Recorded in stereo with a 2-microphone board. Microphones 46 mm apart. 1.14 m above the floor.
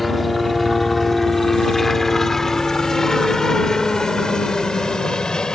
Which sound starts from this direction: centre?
A helicopter, at 0.0 s.